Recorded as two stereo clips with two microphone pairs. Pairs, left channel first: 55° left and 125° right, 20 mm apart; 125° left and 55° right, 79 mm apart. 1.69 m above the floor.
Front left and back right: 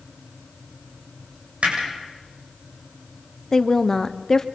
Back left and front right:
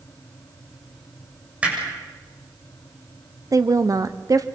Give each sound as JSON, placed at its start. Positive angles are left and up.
{"t": 1.6, "sound": "hammering", "azimuth_deg": -130, "distance_m": 7.0}
{"t": 3.5, "sound": "a woman speaking", "azimuth_deg": -10, "distance_m": 1.0}